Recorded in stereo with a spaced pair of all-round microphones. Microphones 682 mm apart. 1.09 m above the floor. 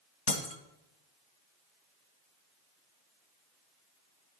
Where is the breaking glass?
45° left (ahead or behind), 1.5 m.